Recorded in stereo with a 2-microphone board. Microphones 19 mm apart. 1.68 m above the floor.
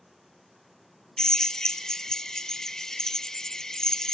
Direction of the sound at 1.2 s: 25° left (ahead or behind).